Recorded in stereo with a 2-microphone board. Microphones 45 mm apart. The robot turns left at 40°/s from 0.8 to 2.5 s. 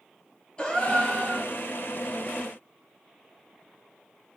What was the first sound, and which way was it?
A gasp, 25° left (ahead or behind).